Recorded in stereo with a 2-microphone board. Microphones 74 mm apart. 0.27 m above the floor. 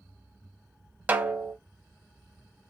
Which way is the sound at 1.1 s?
25° right (ahead or behind).